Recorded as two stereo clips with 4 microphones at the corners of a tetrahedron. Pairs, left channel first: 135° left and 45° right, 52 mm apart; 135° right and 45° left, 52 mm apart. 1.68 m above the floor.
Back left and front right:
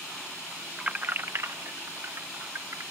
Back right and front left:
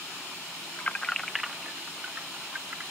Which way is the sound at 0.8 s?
115° right.